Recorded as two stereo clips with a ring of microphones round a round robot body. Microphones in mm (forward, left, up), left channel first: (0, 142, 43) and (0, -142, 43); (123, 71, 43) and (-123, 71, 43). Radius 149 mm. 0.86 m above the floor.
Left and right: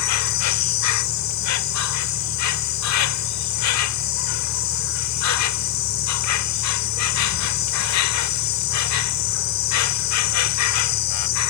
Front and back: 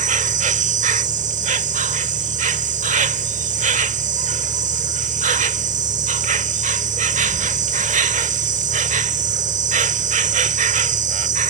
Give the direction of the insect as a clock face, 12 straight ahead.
8 o'clock.